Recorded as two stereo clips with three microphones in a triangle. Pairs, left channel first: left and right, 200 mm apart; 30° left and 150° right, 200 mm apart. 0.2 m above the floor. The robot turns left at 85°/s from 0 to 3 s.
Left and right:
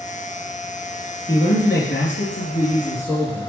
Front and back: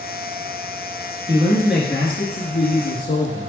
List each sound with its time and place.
1.3 s a man speaking: 160° left, 2.5 m; by 3.5 s 15° left, 2.5 m